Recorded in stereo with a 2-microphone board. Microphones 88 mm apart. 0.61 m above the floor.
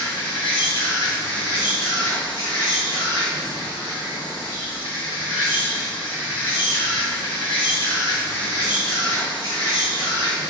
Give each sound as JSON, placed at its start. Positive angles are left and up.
{"t": 0.0, "sound": "an insect", "side_deg": 70, "distance_m": 1.2}